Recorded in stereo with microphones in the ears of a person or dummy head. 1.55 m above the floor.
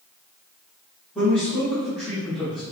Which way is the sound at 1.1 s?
Centre (ahead or behind).